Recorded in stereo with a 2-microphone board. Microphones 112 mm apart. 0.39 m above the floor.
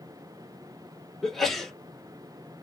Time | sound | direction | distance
1.2 | a sneeze | 5° left (ahead or behind) | 0.8 m